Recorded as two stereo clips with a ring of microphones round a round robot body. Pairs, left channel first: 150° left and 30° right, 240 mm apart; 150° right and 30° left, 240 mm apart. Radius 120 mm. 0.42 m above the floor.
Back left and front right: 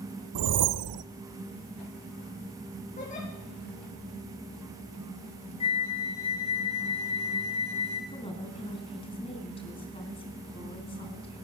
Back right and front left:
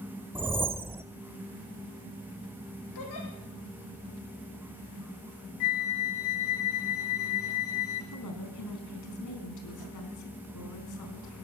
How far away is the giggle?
About 7.5 m.